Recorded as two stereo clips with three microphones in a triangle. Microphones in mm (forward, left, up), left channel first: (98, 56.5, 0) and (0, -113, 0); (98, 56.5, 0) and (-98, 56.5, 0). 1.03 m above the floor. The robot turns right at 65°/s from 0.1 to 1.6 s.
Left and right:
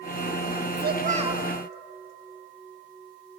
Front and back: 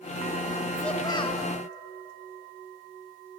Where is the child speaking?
90° right, 1.2 m; by 1.4 s 45° right, 1.2 m.